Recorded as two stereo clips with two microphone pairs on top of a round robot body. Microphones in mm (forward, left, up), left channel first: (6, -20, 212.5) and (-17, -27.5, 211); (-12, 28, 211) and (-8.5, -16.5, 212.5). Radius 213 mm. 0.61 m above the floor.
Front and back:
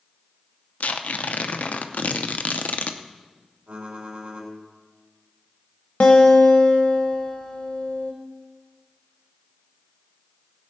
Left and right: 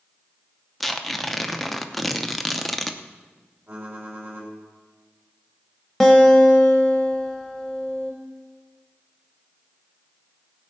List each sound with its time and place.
0.8 s tearing paper: 5° left, 0.7 m
3.7 s typing on a keyboard: 130° right, 4 m
6.0 s a guitar: 10° left, 0.7 m